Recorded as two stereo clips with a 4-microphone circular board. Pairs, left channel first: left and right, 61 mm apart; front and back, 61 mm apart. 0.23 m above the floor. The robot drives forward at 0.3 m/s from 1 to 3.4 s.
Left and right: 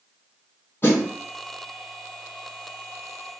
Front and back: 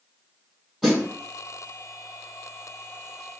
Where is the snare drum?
85° left, 2.0 m; by 1.1 s 90° left, 2.0 m.